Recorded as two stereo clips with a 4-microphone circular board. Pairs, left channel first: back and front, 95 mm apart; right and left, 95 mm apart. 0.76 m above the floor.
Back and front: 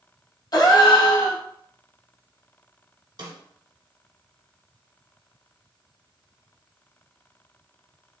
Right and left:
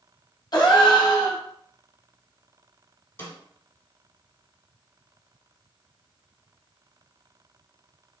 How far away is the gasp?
About 0.6 m.